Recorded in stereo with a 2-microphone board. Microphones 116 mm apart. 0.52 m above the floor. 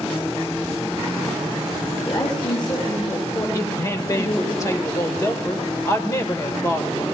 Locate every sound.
2.0 s a woman speaking: 50° left (ahead or behind), 7.5 m; by 4.5 s 45° left (ahead or behind), 9.5 m
3.5 s a woman speaking: 25° left (ahead or behind), 1.8 m